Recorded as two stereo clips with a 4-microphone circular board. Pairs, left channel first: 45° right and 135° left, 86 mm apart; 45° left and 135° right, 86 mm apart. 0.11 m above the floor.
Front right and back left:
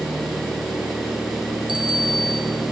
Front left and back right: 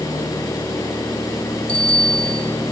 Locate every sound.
1.7 s a bicycle bell: 30° right, 2.5 m